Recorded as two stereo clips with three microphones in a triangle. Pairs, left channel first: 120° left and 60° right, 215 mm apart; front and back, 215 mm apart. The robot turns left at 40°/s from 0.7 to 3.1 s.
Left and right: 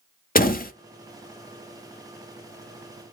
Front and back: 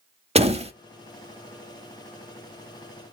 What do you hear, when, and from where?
0.3 s a door slam: 135° left, 0.8 m